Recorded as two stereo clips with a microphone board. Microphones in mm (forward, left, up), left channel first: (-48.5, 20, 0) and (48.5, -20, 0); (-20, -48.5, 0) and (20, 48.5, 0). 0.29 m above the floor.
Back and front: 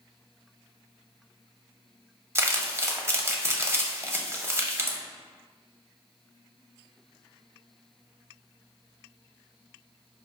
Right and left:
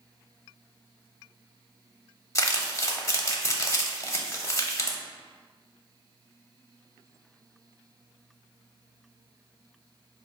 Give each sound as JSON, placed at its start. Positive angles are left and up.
{"t": 2.4, "sound": "crumpling", "azimuth_deg": -70, "distance_m": 0.6}